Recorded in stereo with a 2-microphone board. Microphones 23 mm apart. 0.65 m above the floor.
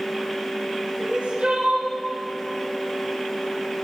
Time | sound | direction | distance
1.0 | crying | 85° right | 4 m